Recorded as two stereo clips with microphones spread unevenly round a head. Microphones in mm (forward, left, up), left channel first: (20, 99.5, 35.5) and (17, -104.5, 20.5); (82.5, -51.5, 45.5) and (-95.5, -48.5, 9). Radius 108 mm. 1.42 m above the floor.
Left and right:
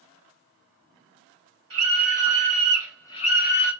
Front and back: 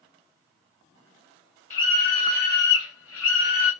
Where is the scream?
65° right, 1.2 m; by 3.7 s 55° left, 0.8 m.